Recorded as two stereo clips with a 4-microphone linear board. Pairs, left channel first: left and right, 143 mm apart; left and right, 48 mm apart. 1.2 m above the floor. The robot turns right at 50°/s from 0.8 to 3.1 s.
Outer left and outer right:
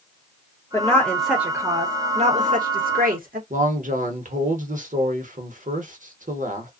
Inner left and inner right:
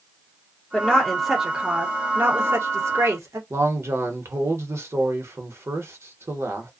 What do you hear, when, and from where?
0.7 s a woman speaking: 160° left, 1.0 m; by 3.4 s 85° right, 1.0 m
3.5 s a man speaking: 65° right (ahead or behind), 1.0 m